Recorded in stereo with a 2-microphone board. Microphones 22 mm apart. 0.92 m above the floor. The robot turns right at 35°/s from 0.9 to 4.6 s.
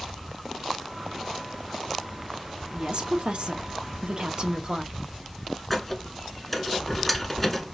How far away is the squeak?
About 0.9 m.